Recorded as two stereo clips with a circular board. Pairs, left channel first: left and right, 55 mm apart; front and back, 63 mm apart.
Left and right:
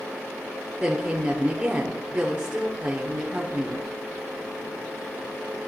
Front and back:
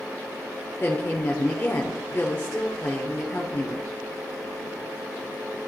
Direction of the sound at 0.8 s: 35° right.